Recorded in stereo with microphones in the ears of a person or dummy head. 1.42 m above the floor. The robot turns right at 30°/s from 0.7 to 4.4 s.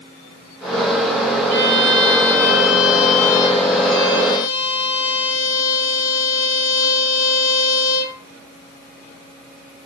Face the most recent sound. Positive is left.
turn(degrees=75)